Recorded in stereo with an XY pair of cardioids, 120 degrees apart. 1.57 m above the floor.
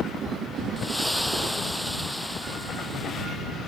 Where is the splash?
5° left.